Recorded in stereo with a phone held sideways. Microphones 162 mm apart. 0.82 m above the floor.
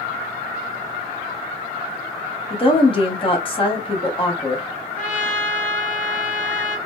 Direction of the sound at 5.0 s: 50° left (ahead or behind).